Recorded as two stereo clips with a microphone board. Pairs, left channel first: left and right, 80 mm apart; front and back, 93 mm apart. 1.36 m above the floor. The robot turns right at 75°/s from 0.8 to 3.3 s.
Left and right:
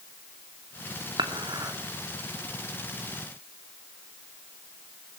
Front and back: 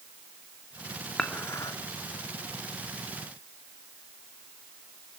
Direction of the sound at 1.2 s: 85° right.